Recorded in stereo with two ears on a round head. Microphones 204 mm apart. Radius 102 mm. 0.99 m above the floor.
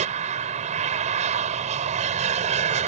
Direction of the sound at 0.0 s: 30° right (ahead or behind).